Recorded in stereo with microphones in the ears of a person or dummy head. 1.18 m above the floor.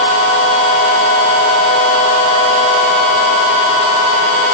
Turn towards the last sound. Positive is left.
No sound to turn to.